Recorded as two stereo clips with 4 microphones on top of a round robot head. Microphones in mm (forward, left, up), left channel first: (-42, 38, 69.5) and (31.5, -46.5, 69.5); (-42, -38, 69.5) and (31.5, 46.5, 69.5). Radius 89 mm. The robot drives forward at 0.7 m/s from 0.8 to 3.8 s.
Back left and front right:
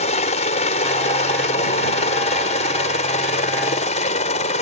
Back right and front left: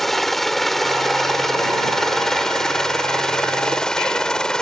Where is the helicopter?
140° left; by 4.6 s 145° left.